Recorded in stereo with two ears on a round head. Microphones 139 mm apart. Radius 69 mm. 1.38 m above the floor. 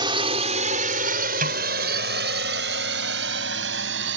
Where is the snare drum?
50° right (ahead or behind).